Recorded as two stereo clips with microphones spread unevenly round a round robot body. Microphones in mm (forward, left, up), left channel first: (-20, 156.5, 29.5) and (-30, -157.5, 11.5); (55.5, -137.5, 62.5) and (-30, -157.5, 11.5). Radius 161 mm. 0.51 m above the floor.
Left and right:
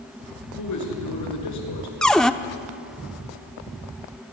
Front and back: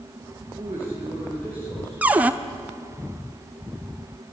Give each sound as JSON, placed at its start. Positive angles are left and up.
{"t": 0.6, "sound": "a man speaking", "azimuth_deg": 120, "distance_m": 6.0}
{"t": 2.0, "sound": "a cupboard door", "azimuth_deg": 180, "distance_m": 0.7}